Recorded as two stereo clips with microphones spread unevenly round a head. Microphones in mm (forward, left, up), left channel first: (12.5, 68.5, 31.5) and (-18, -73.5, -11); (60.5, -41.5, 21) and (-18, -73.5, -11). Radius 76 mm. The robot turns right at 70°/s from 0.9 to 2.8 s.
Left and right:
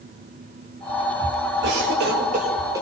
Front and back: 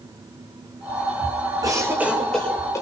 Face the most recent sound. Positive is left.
turn(degrees=-25)